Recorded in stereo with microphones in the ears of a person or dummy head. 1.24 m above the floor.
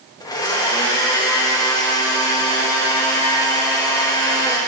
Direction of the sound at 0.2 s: 15° left (ahead or behind).